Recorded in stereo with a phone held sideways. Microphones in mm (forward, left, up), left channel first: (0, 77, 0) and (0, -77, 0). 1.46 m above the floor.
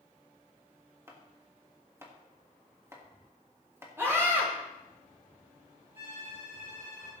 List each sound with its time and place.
1.1 s chopping: 20° right (ahead or behind), 1.7 m
4.0 s a scream: 15° right (ahead or behind), 2.5 m
6.0 s a violin: 35° right (ahead or behind), 6.5 m